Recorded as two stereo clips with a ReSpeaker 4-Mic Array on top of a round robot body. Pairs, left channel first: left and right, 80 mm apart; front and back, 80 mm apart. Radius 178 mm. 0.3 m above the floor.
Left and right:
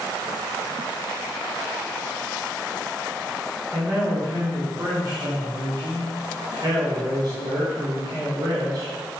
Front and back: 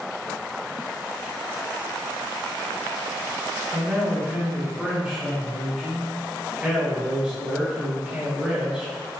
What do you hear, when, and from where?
3.7 s a man speaking: 100° right, 1.5 m